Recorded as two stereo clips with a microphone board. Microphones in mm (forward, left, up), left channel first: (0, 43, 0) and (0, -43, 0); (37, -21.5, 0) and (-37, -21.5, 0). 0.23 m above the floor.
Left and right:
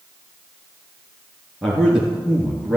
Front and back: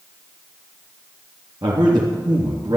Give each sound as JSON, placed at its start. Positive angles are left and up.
{"t": 1.6, "sound": "a man speaking", "azimuth_deg": 180, "distance_m": 3.5}